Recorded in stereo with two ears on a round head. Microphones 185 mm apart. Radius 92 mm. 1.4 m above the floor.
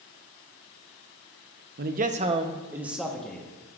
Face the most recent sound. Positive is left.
turn(degrees=5)  # may be behind; listen again after turning